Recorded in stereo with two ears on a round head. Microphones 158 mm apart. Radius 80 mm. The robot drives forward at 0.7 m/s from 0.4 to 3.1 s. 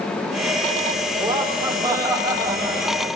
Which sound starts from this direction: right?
Laughter, at 1.2 s.